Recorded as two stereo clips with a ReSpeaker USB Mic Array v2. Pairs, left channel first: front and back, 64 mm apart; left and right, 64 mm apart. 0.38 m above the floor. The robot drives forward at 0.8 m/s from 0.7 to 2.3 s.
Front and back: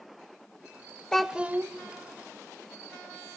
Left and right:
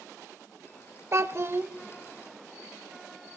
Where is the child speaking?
75° right, 0.5 m; by 1.7 s 140° right, 0.6 m.